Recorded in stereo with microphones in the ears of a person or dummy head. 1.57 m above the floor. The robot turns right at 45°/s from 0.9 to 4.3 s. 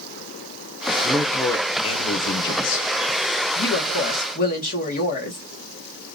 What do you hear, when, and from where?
1.0 s a man speaking: 5° right, 1.0 m; by 2.9 s 80° left, 1.0 m
3.5 s a woman speaking: 90° left, 1.3 m; by 5.4 s 120° left, 1.3 m